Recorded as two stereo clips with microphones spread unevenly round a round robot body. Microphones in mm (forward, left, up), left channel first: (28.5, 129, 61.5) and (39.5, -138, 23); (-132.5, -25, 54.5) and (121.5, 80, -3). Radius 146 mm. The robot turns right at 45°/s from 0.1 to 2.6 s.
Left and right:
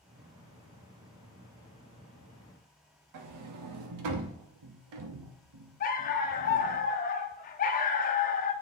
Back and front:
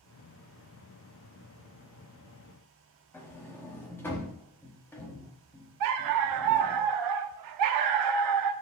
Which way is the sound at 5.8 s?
40° left.